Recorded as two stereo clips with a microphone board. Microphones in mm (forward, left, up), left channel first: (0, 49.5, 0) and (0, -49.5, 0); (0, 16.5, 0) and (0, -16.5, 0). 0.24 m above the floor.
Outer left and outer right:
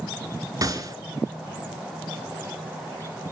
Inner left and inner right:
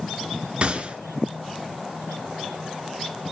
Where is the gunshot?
40° right (ahead or behind), 1.9 m.